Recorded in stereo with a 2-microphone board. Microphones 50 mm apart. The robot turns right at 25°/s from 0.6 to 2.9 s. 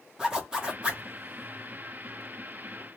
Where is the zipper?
15° right (ahead or behind), 0.9 m; by 1.0 s 25° right (ahead or behind), 0.9 m.